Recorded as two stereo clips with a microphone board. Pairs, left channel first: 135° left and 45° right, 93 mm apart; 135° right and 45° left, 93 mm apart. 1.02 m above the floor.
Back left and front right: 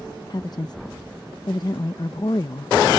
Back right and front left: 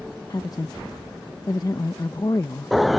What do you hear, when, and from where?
0.3 s a woman speaking: straight behind